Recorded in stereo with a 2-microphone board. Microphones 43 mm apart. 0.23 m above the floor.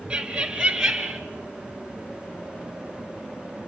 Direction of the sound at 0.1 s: 20° right (ahead or behind).